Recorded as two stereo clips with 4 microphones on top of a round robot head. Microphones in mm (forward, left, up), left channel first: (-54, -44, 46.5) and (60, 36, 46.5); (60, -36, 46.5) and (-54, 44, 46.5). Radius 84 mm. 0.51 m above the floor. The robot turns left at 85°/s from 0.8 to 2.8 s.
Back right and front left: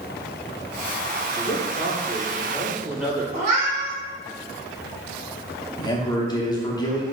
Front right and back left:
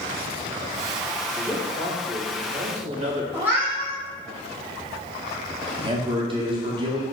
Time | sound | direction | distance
1.4 | a man speaking | 115° right | 1.8 m
3.3 | a cat meowing | 65° left | 1.5 m
5.8 | a man speaking | 170° left | 0.9 m